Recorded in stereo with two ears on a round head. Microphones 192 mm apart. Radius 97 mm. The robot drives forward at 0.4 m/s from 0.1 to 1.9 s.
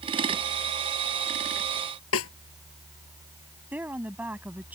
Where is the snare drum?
65° left (ahead or behind).